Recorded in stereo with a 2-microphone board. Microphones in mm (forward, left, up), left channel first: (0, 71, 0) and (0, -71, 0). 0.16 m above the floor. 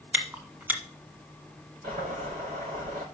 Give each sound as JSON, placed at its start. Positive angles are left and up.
{"t": 0.1, "sound": "chewing", "side_deg": -10, "distance_m": 1.4}
{"t": 1.8, "sound": "boiling", "side_deg": -65, "distance_m": 5.0}